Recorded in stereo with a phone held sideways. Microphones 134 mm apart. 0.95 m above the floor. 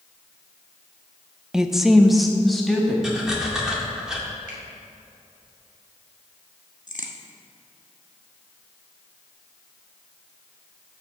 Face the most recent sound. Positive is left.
turn(degrees=75)  # may be behind; listen again after turning